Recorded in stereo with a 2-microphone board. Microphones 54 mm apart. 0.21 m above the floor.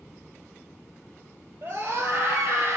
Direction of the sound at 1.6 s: 60° right (ahead or behind).